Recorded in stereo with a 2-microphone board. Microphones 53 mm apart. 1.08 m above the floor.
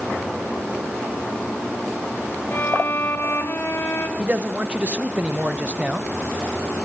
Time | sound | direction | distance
2.5 | a violin | 40° left (ahead or behind) | 1.9 m
4.2 | a man speaking | 25° right (ahead or behind) | 0.9 m